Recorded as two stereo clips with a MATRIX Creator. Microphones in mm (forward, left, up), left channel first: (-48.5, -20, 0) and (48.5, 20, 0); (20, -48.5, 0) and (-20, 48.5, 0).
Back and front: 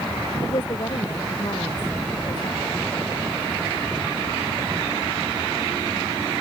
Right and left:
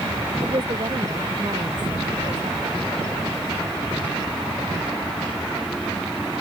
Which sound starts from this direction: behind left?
A woman speaking, at 0.4 s.